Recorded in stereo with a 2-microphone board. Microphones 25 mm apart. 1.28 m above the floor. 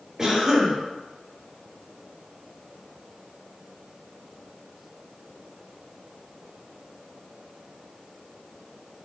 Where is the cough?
15° right (ahead or behind), 1.4 m.